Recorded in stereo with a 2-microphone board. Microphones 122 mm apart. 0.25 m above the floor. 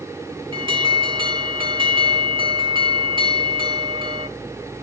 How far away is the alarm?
About 2.0 m.